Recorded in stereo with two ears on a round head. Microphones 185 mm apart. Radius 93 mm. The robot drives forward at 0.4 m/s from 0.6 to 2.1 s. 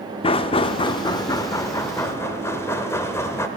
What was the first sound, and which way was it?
Knocking, 25° left (ahead or behind).